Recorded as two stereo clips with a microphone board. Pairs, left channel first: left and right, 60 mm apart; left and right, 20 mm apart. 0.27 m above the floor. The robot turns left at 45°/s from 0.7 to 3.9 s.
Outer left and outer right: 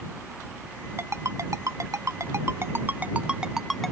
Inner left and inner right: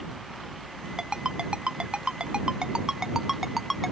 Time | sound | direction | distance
1.0 | a ringtone | 45° right (ahead or behind) | ?